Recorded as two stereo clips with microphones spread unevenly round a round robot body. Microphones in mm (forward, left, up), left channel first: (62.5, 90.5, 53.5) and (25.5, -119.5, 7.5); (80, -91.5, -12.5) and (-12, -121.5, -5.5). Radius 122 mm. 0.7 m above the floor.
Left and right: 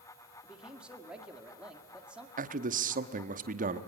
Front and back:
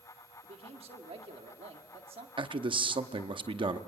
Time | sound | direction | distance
0.4 | a man speaking | 175° right | 1.8 m
2.4 | a man speaking | 135° right | 1.0 m